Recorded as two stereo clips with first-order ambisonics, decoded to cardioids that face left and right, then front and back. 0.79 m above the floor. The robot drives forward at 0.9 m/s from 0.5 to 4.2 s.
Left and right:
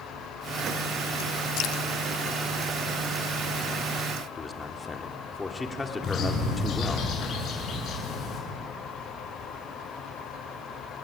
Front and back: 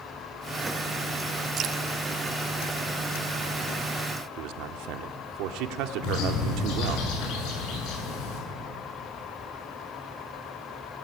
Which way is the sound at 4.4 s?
165° left.